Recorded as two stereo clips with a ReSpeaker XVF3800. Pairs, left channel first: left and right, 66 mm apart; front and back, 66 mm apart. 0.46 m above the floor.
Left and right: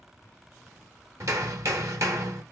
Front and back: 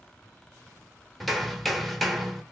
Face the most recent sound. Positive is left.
turn(degrees=-90)